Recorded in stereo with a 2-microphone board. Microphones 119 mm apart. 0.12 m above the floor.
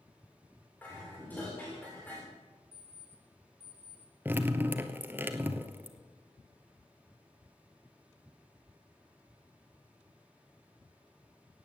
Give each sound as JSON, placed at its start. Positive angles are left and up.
{"t": 0.8, "sound": "dishes clattering", "side_deg": 15, "distance_m": 6.5}
{"t": 2.7, "sound": "an alarm clock", "side_deg": 60, "distance_m": 6.0}
{"t": 4.2, "sound": "dripping", "side_deg": -15, "distance_m": 1.1}